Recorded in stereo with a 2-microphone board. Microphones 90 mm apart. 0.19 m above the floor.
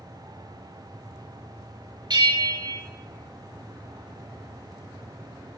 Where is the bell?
55° right (ahead or behind), 1.1 m.